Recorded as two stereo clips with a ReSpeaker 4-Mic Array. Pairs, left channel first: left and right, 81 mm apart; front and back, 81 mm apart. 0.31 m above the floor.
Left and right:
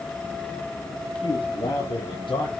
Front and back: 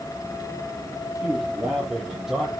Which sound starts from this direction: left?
A man speaking, at 1.2 s.